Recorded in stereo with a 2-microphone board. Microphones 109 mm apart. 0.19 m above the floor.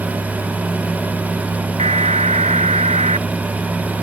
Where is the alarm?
85° right.